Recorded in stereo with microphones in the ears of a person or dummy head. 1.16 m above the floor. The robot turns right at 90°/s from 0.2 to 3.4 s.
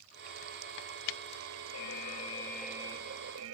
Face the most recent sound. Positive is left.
turn(degrees=-110)